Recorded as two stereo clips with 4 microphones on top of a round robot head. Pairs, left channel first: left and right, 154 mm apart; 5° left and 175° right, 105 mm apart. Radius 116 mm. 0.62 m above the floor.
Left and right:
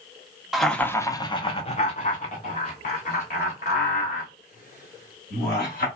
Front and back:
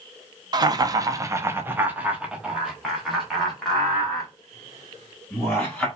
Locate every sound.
0.5 s laughter: 175° right, 0.8 m; by 5.9 s 90° left, 3 m